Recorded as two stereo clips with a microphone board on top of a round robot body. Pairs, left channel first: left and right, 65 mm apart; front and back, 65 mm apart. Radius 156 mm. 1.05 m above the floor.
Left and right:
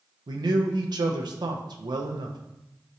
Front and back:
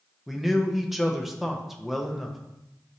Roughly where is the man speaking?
Right.